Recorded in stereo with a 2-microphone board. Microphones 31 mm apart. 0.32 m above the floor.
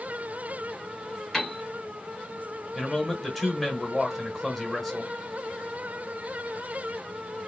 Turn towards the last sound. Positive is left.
turn(degrees=5)  # may be behind; listen again after turning